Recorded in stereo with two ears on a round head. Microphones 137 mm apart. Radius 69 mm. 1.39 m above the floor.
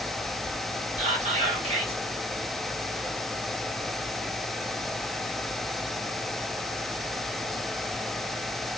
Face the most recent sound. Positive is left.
turn(degrees=-45)  # may be behind; listen again after turning